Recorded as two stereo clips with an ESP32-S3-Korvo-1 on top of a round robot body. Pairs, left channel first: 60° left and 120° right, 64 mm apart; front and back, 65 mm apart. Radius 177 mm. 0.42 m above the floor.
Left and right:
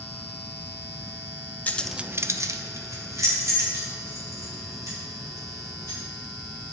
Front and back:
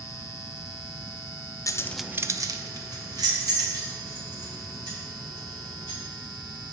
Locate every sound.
1.7 s keys jangling: straight ahead, 0.7 m; by 6.0 s 165° right, 6 m